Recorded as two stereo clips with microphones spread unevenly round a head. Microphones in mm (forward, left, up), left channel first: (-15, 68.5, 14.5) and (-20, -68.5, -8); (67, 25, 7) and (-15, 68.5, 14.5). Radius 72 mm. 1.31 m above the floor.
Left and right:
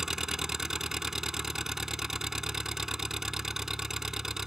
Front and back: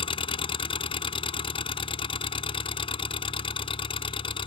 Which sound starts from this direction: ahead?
An engine running, at 0.0 s.